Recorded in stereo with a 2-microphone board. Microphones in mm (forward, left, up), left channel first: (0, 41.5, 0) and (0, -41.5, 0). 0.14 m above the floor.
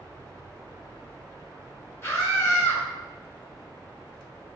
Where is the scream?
30° left (ahead or behind), 1.3 m.